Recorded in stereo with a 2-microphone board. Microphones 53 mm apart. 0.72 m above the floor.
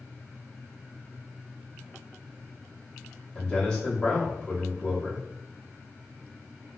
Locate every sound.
3.4 s a man speaking: 20° left (ahead or behind), 1.1 m